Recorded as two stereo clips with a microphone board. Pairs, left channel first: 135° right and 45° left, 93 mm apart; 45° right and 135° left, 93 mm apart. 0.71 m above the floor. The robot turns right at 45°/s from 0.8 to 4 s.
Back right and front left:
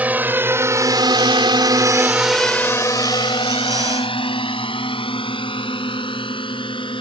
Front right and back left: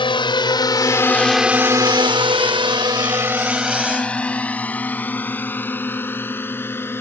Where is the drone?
25° right; by 7.0 s 110° right.